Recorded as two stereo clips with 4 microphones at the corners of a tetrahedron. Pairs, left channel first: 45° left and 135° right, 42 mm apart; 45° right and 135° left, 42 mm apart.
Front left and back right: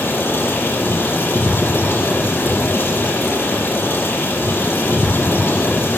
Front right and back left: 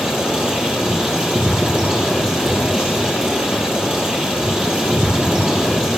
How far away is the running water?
About 6 m.